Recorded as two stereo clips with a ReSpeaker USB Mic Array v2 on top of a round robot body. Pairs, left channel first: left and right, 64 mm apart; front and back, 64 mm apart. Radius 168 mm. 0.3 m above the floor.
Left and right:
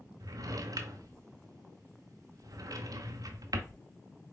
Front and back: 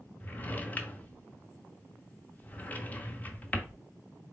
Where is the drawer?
65° right, 0.7 m.